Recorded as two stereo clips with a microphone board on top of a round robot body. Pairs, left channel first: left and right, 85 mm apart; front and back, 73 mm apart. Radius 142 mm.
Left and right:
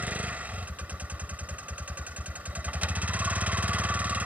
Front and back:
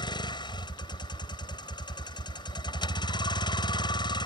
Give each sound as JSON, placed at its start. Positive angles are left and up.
{"t": 0.0, "sound": "a vehicle", "azimuth_deg": -15}